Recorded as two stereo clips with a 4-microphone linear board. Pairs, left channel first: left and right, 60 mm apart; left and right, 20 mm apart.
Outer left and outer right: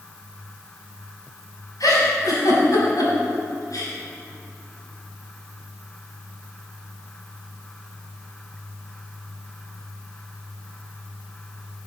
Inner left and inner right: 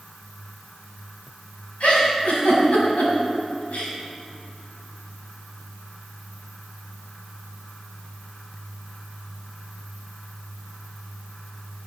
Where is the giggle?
75° left (ahead or behind), 4.5 m.